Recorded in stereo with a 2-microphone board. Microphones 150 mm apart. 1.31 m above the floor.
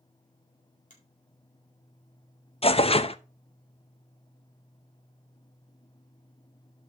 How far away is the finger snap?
About 4 m.